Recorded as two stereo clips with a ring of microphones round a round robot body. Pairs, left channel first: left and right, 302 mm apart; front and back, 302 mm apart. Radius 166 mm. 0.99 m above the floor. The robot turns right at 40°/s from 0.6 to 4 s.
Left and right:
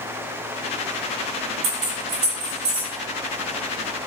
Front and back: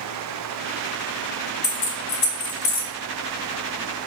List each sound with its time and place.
1.6 s keys jangling: 60° right, 0.7 m; by 2.9 s 10° right, 0.7 m